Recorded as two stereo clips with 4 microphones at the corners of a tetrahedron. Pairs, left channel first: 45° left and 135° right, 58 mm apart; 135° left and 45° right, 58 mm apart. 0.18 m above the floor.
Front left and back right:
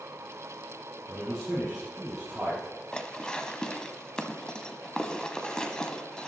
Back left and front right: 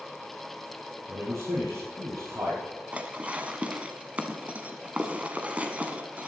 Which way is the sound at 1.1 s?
50° right.